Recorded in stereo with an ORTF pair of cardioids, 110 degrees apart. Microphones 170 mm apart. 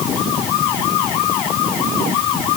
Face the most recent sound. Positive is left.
No sound to turn to.